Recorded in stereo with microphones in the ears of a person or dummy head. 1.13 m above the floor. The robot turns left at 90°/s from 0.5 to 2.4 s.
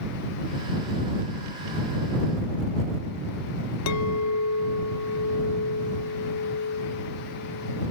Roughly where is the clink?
Left.